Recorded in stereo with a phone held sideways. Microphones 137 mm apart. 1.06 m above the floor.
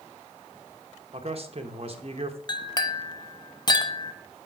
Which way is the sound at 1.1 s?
45° right (ahead or behind).